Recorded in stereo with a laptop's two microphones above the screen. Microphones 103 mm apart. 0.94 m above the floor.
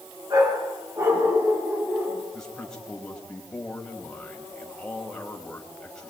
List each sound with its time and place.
0.3 s a dog barking: 35° right (ahead or behind), 4.5 m; by 2.2 s 15° right (ahead or behind), 3.5 m
2.3 s a man speaking: 5° left (ahead or behind), 4.5 m